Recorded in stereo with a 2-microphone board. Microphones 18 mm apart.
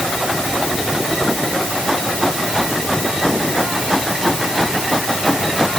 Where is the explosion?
I don't hear an explosion.